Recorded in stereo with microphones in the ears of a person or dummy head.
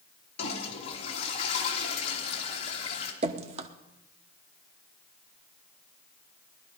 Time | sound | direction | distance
0.4 | a toilet flushing | 40° left (ahead or behind) | 2.5 m
3.2 | dripping | 30° right (ahead or behind) | 0.9 m